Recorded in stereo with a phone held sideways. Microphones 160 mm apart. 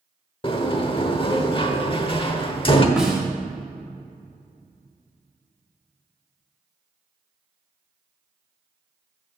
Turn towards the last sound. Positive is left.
turn(degrees=-5)  # may be behind; listen again after turning